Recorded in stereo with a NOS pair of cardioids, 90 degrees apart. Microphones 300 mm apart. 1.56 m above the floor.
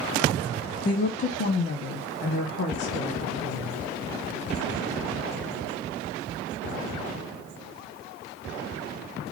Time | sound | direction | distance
0.8 | a woman speaking | 25° left | 0.7 m